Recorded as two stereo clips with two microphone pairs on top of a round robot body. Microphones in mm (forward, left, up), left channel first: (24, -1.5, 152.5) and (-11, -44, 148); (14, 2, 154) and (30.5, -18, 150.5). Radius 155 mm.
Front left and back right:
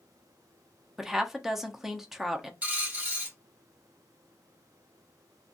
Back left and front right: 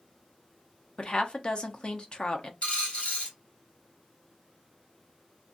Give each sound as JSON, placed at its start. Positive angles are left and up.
{"t": 1.0, "sound": "a woman speaking", "azimuth_deg": 160, "distance_m": 0.8}
{"t": 2.6, "sound": "a dropped coin", "azimuth_deg": 170, "distance_m": 1.8}